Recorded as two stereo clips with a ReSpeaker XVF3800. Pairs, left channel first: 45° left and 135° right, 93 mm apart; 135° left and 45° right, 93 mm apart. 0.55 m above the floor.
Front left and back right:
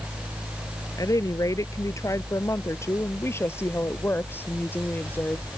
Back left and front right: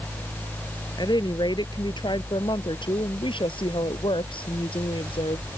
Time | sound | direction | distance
1.0 | a woman speaking | 95° left | ?